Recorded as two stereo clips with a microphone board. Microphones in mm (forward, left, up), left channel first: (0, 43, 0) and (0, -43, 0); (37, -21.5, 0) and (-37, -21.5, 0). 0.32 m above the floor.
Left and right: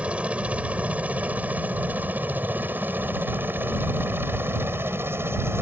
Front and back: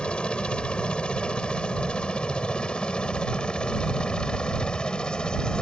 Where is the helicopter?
45° right; by 5.6 s 65° right.